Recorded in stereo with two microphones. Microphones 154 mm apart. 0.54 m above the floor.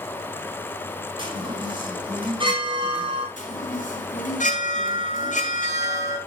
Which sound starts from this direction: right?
A chime, at 1.2 s.